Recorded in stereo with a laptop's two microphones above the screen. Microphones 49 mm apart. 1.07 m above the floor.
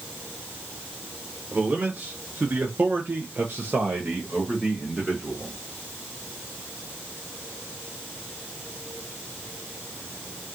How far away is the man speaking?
About 1.2 m.